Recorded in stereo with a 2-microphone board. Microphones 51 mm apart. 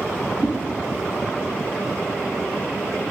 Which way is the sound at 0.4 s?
15° right (ahead or behind).